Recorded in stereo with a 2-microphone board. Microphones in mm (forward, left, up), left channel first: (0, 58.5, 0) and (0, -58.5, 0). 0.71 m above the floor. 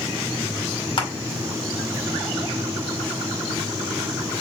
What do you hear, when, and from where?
1.0 s crushing: 45° left (ahead or behind), 2 m